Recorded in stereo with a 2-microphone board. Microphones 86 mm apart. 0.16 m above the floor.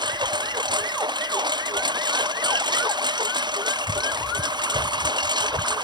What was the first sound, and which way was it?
A lawn mower, 60° right (ahead or behind).